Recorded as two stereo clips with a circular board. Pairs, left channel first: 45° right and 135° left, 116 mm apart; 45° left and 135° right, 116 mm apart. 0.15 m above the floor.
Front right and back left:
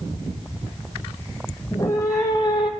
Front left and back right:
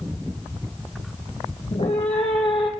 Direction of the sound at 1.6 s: 25° left.